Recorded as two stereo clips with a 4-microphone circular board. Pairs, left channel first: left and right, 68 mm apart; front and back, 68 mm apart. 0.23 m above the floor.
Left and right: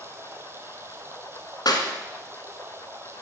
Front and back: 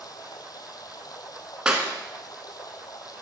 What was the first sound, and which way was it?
Running water, 35° right.